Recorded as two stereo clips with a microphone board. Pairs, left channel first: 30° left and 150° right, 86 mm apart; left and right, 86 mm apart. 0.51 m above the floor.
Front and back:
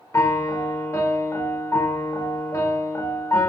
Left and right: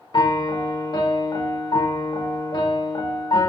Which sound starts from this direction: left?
A piano, at 0.1 s.